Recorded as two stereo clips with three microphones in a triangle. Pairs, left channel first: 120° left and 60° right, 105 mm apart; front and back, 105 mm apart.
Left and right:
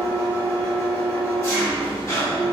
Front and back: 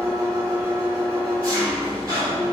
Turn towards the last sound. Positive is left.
turn(degrees=160)